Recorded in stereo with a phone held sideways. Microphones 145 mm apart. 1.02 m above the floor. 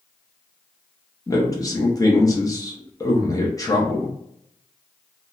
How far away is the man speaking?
About 0.8 m.